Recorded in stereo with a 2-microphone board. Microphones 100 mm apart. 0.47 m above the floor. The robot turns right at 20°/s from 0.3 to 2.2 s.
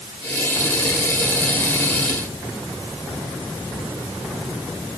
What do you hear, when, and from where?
Only background noise.